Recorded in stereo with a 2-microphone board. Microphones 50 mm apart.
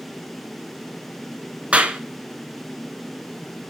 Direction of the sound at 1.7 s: 25° right (ahead or behind).